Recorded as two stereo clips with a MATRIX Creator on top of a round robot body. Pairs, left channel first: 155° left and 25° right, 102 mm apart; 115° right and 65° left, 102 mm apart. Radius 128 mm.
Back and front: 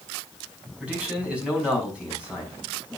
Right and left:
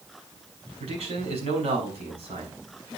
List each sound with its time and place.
0.8 s a man speaking: 55° left, 5.5 m